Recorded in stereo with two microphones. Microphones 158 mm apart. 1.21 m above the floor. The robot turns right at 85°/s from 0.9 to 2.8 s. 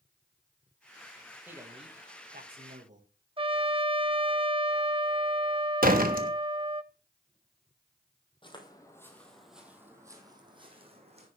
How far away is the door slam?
About 1.1 m.